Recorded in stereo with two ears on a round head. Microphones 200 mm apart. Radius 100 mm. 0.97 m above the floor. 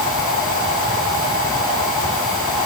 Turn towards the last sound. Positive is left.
No sound to turn to.